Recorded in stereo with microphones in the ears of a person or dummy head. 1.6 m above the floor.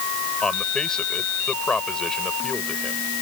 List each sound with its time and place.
0.4 s a man speaking: 5° left (ahead or behind)